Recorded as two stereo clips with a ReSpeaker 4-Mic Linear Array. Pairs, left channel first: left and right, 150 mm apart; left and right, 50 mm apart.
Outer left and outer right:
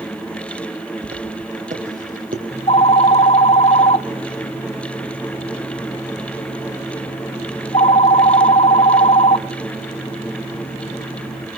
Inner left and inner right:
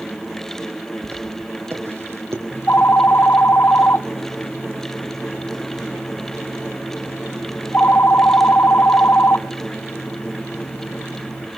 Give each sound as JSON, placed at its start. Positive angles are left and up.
{"t": 1.0, "sound": "footsteps", "side_deg": -45, "distance_m": 4.0}
{"t": 2.5, "sound": "a phone ringing", "side_deg": 40, "distance_m": 0.8}